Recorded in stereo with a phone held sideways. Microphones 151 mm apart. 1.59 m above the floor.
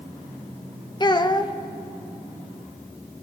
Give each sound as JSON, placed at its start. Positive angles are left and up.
{"t": 1.0, "sound": "a child speaking", "side_deg": 30, "distance_m": 0.5}